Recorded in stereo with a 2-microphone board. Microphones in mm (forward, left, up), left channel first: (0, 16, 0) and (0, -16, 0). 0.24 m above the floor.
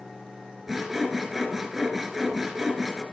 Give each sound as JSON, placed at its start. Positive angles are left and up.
{"t": 0.7, "sound": "sawing", "side_deg": -10, "distance_m": 1.9}